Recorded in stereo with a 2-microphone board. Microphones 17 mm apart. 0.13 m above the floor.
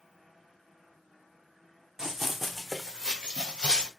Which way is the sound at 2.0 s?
40° right (ahead or behind).